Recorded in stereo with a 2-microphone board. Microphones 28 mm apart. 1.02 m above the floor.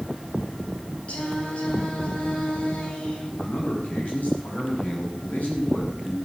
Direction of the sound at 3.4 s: 65° left (ahead or behind).